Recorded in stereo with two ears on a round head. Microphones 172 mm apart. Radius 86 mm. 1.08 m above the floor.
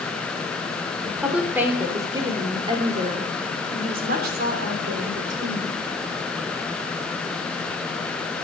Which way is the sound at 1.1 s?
Centre (ahead or behind).